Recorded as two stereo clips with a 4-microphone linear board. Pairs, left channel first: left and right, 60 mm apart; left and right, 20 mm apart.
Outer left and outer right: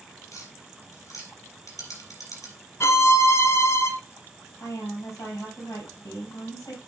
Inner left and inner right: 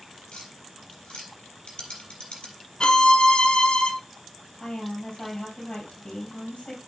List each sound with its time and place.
0.3 s tapping: 65° left (ahead or behind), 4.5 m
2.8 s a violin: 50° left (ahead or behind), 1.0 m
4.6 s a woman speaking: 65° left (ahead or behind), 4 m